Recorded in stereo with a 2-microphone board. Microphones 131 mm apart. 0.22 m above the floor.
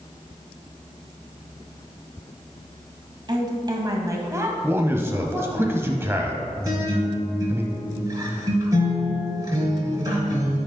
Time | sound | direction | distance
3.3 | a woman speaking | 35° right (ahead or behind) | 1.7 m
4.6 | a man speaking | 20° right (ahead or behind) | 1.0 m
6.6 | a guitar | 30° right (ahead or behind) | 3 m